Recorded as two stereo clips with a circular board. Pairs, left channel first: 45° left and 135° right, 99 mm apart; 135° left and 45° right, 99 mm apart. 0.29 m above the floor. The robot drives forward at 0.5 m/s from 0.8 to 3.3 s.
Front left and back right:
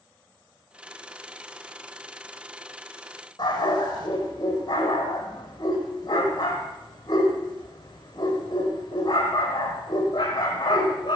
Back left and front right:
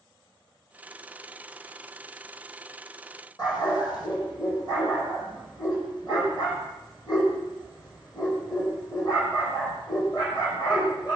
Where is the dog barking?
90° left, 4 m.